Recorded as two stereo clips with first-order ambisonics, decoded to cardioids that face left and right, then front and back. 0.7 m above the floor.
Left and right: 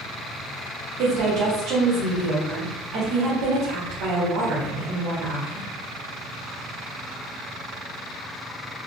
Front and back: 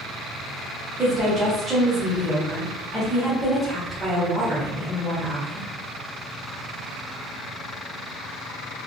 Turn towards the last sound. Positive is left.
turn(degrees=-105)